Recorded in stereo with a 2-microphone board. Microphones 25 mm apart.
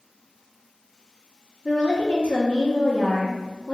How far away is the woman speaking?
About 0.6 m.